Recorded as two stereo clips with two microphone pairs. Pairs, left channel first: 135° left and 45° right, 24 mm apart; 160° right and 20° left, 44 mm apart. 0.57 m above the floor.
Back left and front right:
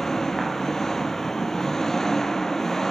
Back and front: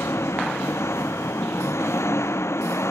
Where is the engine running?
150° right.